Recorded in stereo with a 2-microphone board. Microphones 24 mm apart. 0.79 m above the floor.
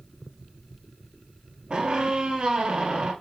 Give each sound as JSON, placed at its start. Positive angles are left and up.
{"t": 1.7, "sound": "a squeak", "side_deg": -35, "distance_m": 1.7}